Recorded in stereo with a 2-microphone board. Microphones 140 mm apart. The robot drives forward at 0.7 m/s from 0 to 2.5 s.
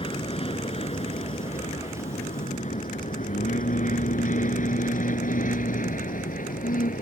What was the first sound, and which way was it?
An aircraft, 40° left (ahead or behind).